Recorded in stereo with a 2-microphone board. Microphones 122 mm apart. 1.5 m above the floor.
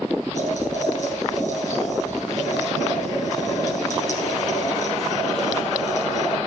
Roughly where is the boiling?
Left.